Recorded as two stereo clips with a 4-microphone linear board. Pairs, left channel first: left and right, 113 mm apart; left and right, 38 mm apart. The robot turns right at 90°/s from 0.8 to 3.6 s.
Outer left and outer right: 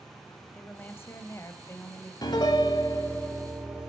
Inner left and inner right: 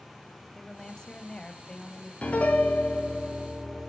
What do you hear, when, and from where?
0.5 s a woman speaking: 15° left (ahead or behind), 1.1 m; by 2.1 s 10° left (ahead or behind), 1.1 m
2.2 s a piano: 70° left, 1.6 m; by 3.9 s 165° right, 1.6 m